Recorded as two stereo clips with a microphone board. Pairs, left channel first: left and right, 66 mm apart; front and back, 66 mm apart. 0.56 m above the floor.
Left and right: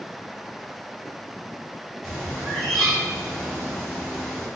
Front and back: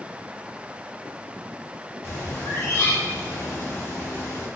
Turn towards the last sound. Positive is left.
turn(degrees=10)